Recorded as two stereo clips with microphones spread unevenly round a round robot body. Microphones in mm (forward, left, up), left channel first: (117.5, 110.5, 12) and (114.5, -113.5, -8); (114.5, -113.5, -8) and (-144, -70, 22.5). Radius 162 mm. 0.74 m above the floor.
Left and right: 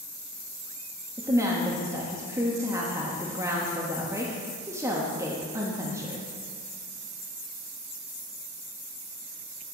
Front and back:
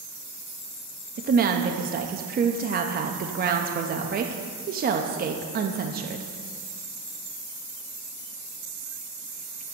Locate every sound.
1.2 s a woman speaking: 150° right, 0.6 m